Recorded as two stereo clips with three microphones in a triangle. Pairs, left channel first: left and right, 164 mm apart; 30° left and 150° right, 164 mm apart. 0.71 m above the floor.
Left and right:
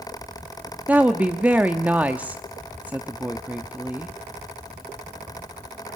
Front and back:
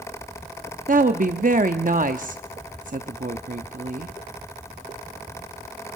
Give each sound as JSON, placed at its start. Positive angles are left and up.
{"t": 0.9, "sound": "a woman speaking", "azimuth_deg": -170, "distance_m": 0.8}